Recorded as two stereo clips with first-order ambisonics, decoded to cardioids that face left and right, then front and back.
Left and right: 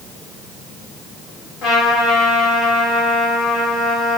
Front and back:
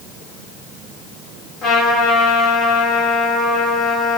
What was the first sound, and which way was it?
A trumpet, 45° left.